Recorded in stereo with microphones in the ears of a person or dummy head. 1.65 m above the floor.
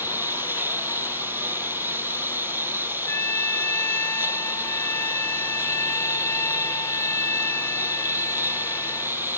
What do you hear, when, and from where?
0.0 s a lawn mower: 10° right (ahead or behind)
3.1 s a trumpet: 10° left (ahead or behind)